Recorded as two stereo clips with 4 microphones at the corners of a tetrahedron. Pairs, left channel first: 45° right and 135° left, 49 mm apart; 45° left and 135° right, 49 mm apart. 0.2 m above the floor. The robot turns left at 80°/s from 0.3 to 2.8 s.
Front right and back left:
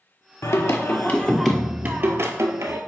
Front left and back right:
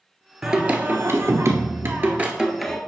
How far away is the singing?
About 1.0 m.